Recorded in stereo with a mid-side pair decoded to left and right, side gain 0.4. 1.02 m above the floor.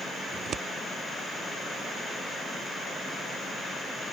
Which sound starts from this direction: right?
Scissors, at 0.3 s.